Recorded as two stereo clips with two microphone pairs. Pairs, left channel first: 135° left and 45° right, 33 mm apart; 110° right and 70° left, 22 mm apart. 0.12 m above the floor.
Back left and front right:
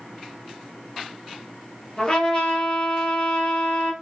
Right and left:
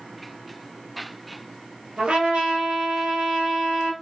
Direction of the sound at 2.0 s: 80° left.